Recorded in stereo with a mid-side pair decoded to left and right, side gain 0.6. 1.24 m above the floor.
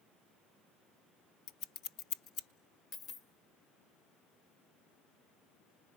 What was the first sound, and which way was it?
Scissors, 65° left.